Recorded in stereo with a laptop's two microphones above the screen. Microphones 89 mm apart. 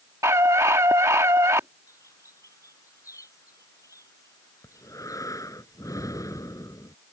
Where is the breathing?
40° left (ahead or behind).